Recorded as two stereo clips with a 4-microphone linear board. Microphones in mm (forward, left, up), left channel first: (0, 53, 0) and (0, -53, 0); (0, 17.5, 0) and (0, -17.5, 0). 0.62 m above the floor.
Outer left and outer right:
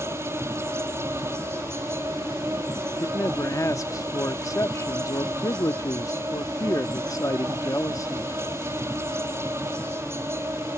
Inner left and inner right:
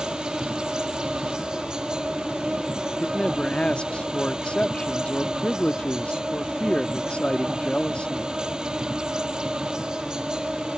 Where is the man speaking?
30° left (ahead or behind).